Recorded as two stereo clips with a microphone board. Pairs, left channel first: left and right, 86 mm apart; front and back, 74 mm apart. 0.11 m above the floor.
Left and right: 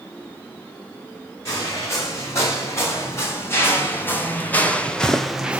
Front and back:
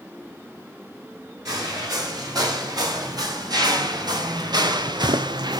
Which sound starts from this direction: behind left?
Footsteps, at 1.4 s.